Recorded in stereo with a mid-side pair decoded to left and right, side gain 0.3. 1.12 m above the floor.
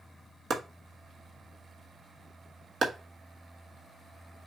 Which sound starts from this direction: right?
Chopping, at 0.5 s.